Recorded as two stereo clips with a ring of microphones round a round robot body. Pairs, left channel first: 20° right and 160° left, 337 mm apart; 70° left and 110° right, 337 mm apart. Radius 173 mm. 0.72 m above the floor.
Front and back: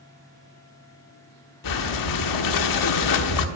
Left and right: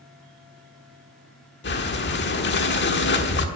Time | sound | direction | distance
1.6 | breathing | 10° left | 1.2 m